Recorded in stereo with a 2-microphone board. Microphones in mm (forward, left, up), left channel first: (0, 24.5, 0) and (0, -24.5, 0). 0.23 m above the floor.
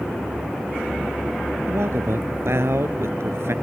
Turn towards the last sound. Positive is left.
turn(degrees=-65)  # may be behind; listen again after turning